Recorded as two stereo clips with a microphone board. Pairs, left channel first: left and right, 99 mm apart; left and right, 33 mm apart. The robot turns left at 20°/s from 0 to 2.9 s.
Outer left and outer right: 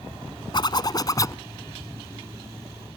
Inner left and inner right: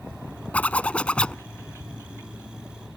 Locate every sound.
0.5 s a zipper: 50° left (ahead or behind); by 1.4 s 35° left (ahead or behind)